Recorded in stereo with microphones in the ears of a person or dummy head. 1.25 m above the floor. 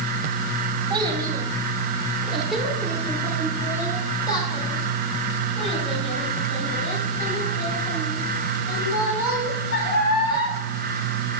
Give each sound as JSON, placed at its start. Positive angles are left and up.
{"t": 0.9, "sound": "a child speaking", "side_deg": -25, "distance_m": 1.8}